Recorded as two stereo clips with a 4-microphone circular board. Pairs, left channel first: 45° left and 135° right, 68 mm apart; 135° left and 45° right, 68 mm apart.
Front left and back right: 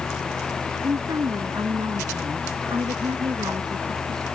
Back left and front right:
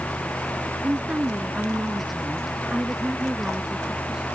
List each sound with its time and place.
0.8 s a woman speaking: 115° right; by 4.2 s 125° right